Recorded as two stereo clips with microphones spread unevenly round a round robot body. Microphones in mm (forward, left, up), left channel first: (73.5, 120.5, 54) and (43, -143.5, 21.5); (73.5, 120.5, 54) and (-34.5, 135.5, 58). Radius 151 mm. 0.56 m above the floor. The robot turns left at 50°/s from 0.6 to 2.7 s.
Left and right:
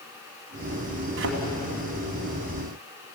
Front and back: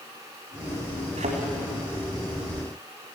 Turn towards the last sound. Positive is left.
turn(degrees=140)